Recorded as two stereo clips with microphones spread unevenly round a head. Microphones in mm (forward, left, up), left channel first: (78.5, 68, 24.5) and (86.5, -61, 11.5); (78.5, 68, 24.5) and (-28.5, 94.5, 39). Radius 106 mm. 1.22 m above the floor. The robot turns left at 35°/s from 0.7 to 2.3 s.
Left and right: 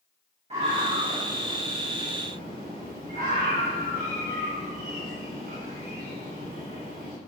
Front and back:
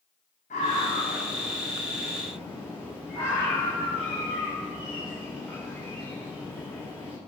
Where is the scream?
45° right, 8 m; by 7.1 s 100° right, 8 m.